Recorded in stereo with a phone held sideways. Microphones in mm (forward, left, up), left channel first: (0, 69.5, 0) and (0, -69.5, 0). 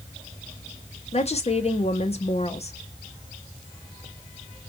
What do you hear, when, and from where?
1.1 s a woman speaking: 50° left (ahead or behind), 0.7 m